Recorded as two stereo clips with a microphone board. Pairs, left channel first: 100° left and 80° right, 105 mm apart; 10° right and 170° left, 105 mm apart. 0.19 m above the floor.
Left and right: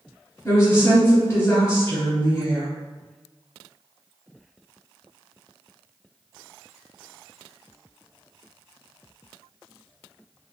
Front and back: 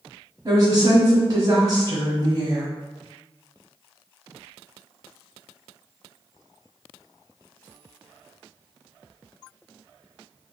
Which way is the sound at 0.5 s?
145° left.